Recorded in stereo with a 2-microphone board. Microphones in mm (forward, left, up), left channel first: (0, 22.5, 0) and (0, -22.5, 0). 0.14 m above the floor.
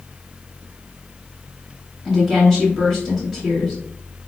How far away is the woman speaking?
About 1.8 m.